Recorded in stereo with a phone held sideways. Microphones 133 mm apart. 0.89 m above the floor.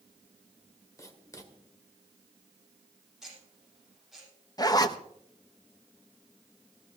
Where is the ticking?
Centre (ahead or behind), 7.5 m.